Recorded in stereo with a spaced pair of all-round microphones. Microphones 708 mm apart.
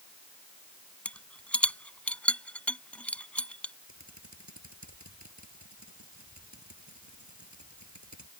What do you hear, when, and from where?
1.1 s a rattle: centre (ahead or behind)
3.9 s typing on a keyboard: 25° right (ahead or behind)